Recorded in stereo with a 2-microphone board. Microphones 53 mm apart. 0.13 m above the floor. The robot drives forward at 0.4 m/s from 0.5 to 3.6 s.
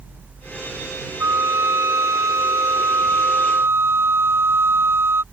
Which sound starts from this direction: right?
A flute, at 1.2 s.